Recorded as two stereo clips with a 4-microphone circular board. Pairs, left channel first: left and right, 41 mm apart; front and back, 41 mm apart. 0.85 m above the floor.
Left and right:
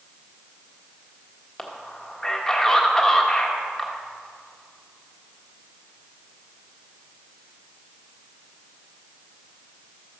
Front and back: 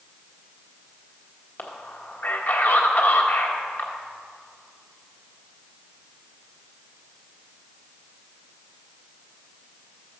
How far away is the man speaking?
About 1.3 m.